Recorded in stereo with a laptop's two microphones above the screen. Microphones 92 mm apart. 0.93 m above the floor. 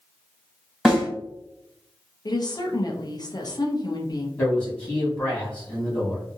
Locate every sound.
0.8 s a snare drum: 5° right (ahead or behind), 1.7 m
2.2 s a woman speaking: 45° left (ahead or behind), 0.6 m
4.4 s a man speaking: 15° left (ahead or behind), 1.5 m